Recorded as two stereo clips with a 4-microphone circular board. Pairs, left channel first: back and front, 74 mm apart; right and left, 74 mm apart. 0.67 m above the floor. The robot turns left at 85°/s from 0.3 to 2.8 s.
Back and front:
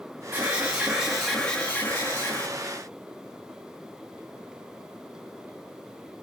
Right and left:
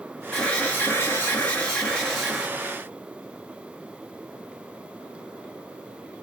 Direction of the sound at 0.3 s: 20° right.